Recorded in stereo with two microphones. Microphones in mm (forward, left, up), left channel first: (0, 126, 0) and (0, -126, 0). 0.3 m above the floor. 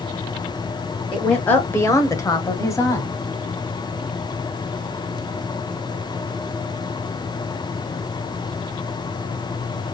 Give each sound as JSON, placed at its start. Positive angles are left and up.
{"t": 1.1, "sound": "a woman speaking", "side_deg": 5, "distance_m": 1.1}